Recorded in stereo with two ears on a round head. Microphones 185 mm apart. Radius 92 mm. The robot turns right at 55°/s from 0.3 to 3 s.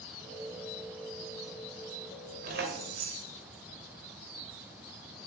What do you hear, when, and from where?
2.4 s keys jangling: 135° right, 2.5 m; by 3.3 s 105° right, 2.5 m